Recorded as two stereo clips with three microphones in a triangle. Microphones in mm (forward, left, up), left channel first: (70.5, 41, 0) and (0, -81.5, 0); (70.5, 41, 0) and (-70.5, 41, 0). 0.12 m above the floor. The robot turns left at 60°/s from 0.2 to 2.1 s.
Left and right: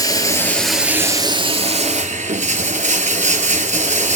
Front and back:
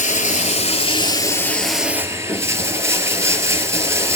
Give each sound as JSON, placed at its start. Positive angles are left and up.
{"t": 0.0, "sound": "running water", "azimuth_deg": 0, "distance_m": 1.4}